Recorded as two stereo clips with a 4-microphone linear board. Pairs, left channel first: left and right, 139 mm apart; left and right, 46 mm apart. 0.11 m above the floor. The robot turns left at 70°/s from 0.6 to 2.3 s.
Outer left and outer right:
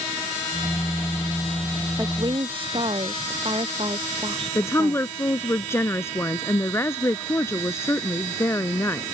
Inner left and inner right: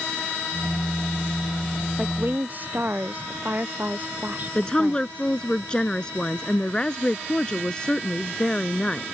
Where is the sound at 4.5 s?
20° left (ahead or behind).